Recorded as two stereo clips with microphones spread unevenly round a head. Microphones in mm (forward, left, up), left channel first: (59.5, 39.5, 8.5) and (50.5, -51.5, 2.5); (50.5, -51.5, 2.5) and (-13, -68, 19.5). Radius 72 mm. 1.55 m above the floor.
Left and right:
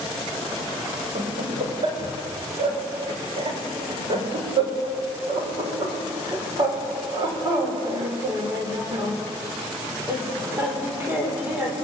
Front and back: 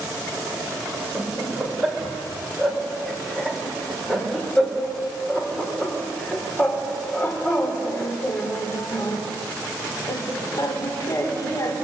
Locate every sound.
1.1 s laughter: 80° right, 6.5 m; by 11.8 s 25° right, 5.5 m